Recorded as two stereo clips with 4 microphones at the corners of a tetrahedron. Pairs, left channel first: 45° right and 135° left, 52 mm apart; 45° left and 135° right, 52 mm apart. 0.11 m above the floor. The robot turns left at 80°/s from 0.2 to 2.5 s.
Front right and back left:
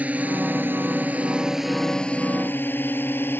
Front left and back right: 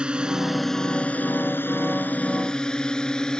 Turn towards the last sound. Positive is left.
turn(degrees=-25)